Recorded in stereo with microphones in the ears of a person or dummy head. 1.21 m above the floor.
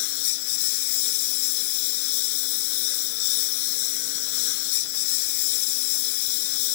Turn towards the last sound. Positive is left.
turn(degrees=80)